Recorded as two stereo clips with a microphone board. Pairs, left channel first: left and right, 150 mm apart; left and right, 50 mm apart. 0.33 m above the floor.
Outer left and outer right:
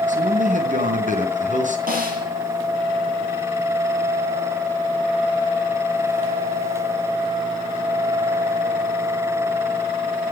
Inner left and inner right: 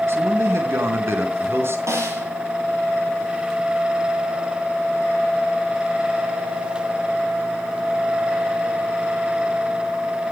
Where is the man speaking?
60° right (ahead or behind), 4 m.